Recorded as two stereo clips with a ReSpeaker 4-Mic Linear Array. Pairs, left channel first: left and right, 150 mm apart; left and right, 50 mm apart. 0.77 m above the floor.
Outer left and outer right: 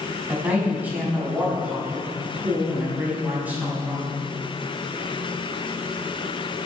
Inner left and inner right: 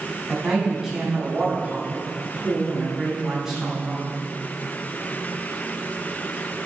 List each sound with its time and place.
0.3 s a man speaking: 10° right (ahead or behind), 5.5 m